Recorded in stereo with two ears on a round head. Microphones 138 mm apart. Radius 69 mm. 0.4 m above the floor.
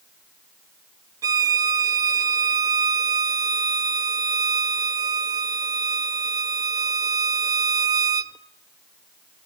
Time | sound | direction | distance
1.2 | a violin | 25° right (ahead or behind) | 0.5 m